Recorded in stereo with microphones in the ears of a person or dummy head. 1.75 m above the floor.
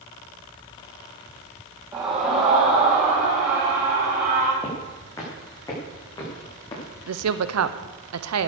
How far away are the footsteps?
About 5.5 m.